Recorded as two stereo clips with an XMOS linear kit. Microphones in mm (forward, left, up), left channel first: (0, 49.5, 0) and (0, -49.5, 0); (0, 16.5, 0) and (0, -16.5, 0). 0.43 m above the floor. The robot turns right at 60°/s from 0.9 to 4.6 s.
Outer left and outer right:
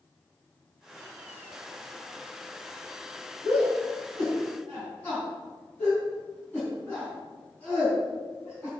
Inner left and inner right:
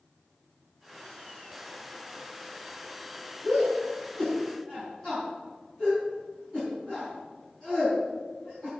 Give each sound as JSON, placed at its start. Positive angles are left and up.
{"t": 3.4, "sound": "a shout", "side_deg": 75, "distance_m": 4.5}